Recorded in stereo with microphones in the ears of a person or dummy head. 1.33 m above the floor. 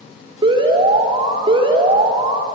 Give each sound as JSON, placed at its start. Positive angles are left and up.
{"t": 0.4, "sound": "an alarm", "side_deg": -30, "distance_m": 3.5}